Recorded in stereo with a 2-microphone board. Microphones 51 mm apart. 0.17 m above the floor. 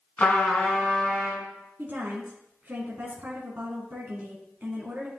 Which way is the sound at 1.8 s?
35° right (ahead or behind).